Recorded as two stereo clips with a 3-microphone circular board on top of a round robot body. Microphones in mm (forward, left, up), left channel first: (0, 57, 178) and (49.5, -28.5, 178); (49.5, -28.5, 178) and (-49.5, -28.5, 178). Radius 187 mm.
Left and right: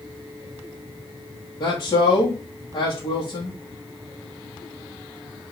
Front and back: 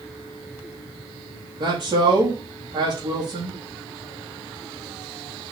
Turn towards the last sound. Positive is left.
turn(degrees=155)